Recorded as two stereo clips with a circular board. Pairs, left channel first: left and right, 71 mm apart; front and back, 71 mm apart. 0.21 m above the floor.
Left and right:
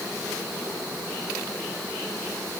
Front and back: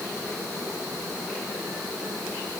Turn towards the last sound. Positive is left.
No sound to turn to.